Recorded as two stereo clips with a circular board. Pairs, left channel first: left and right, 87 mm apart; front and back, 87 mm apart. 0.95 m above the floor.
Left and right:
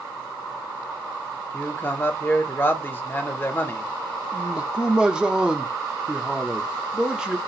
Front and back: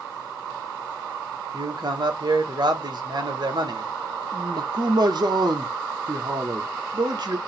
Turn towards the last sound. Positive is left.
turn(degrees=-170)